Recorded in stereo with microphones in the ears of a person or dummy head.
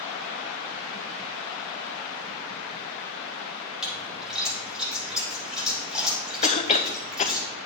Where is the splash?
Centre (ahead or behind), 6 m.